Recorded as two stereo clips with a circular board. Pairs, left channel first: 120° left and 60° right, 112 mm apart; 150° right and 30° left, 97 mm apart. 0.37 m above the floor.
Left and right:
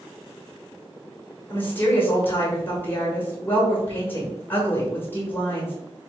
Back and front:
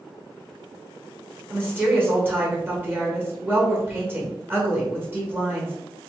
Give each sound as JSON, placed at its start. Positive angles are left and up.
{"t": 1.5, "sound": "a woman speaking", "azimuth_deg": 70, "distance_m": 1.3}